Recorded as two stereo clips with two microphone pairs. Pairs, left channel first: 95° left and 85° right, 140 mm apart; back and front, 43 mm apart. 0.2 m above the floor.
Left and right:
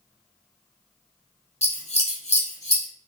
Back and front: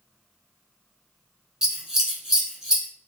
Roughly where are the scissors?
Left.